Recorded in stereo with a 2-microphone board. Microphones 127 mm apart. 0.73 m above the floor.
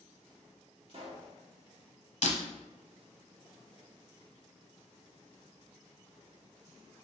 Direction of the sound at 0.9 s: 50° right (ahead or behind).